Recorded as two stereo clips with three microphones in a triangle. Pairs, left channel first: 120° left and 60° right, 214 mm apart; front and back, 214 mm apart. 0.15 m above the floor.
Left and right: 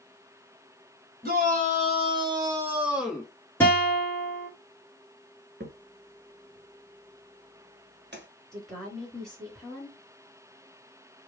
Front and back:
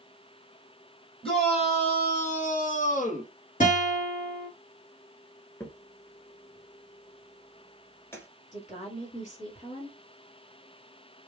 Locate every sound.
1.2 s a shout: 50° right, 1.4 m; by 3.3 s 35° left, 1.4 m
3.6 s a guitar: 40° left, 1.8 m
5.6 s a crack: 75° right, 0.7 m
8.5 s a woman speaking: 35° left, 2 m